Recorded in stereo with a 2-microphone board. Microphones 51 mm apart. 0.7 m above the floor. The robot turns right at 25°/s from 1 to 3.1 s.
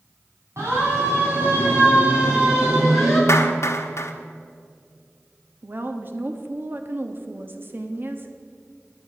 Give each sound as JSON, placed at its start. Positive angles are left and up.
{"t": 0.6, "sound": "a siren", "side_deg": -70, "distance_m": 6.5}
{"t": 3.3, "sound": "a clap", "side_deg": 65, "distance_m": 1.2}
{"t": 5.6, "sound": "a woman speaking", "side_deg": -45, "distance_m": 1.2}